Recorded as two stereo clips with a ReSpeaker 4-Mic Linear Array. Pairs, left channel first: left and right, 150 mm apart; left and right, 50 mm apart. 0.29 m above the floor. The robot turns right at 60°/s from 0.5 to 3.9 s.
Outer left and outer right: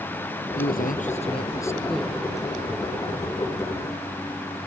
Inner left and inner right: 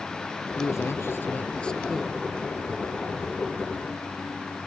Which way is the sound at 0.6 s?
95° left.